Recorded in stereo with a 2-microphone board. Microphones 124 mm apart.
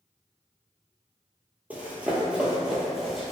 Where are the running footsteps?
10° right (ahead or behind), 0.7 m; by 3.3 s centre (ahead or behind), 0.9 m.